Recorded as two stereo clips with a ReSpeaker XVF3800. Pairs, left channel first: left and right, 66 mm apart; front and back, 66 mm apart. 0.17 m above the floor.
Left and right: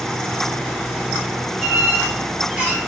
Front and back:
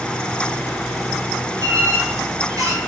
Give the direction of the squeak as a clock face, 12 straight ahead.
5 o'clock.